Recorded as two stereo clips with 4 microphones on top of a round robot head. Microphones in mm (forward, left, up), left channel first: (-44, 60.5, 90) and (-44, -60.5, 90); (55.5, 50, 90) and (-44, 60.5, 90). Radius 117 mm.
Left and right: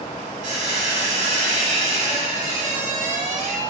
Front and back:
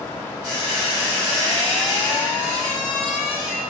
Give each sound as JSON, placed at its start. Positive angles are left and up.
{"t": 0.4, "sound": "a squeak", "azimuth_deg": -110, "distance_m": 1.3}